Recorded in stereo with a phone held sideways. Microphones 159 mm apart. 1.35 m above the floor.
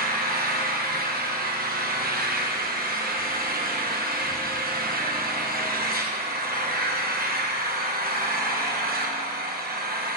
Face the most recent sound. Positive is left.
turn(degrees=-90)